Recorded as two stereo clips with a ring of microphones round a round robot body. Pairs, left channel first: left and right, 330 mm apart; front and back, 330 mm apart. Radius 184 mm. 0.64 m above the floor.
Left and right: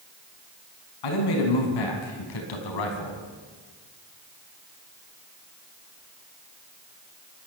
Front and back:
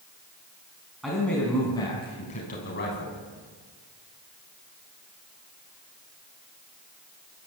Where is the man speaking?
90° left, 5 m; by 3.2 s 60° left, 4.5 m.